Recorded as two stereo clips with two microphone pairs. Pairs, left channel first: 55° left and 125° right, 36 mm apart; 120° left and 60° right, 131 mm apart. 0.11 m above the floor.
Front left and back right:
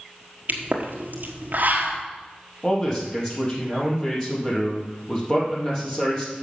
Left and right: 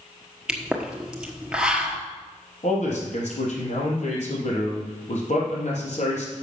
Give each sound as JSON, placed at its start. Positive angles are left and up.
{"t": 0.5, "sound": "a pop", "azimuth_deg": -140, "distance_m": 1.2}
{"t": 2.6, "sound": "a man speaking", "azimuth_deg": 120, "distance_m": 3.5}